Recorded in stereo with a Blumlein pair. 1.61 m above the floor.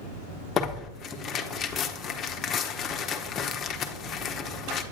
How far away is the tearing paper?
About 0.8 m.